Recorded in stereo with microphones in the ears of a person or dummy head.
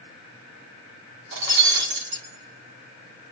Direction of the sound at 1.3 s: 65° right (ahead or behind).